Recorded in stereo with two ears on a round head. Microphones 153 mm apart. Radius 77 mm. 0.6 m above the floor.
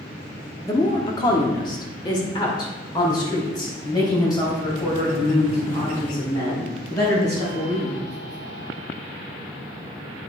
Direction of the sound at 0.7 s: 20° left (ahead or behind).